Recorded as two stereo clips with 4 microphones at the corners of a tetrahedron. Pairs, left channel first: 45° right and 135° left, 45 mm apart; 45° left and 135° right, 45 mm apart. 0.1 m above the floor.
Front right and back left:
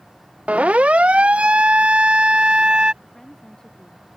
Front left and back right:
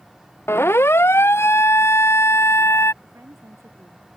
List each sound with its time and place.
0.5 s a siren: 75° left; by 2.9 s 65° left
3.0 s a woman speaking: 125° right